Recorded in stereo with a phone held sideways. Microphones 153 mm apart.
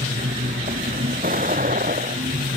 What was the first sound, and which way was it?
A vehicle, 65° right (ahead or behind).